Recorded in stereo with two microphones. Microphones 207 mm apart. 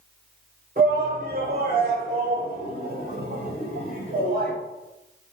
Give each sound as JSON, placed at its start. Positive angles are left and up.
{"t": 0.8, "sound": "a shout", "side_deg": -45, "distance_m": 1.6}